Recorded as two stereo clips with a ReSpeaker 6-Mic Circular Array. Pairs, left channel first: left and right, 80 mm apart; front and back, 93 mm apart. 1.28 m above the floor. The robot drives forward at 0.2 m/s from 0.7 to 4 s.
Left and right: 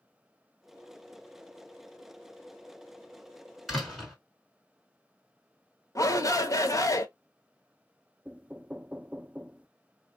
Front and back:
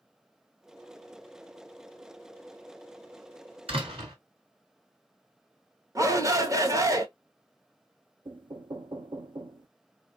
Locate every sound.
3.7 s a door slam: straight behind, 2.5 m
6.0 s a shout: 130° left, 0.8 m
8.2 s knocking: 160° right, 0.5 m